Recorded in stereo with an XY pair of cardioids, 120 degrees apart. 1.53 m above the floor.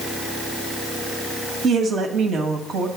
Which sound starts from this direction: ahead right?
A woman speaking, at 1.6 s.